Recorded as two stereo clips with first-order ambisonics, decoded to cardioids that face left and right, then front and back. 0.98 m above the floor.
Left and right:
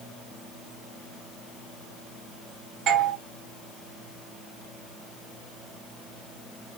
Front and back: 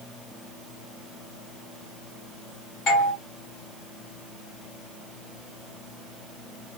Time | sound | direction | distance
2.9 | a doorbell | 45° right | 1.9 m